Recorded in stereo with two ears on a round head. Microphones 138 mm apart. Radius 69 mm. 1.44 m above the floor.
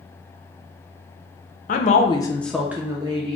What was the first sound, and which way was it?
A woman speaking, 55° left (ahead or behind).